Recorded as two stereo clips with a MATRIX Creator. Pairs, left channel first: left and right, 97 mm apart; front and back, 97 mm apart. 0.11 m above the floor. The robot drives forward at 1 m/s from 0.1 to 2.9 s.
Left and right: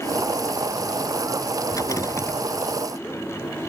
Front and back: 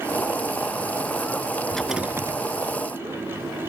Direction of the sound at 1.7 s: 70° left.